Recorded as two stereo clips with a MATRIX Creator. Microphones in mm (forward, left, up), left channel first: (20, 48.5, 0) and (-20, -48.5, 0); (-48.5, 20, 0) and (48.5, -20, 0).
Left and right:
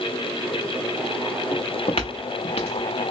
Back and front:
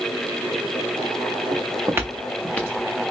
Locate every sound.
1.5 s footsteps: 20° left, 0.7 m; by 3.1 s 100° left, 1.0 m